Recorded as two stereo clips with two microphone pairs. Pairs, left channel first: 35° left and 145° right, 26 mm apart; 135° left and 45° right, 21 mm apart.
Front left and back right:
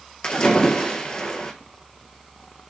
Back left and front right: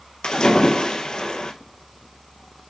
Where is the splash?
85° left, 1.2 m.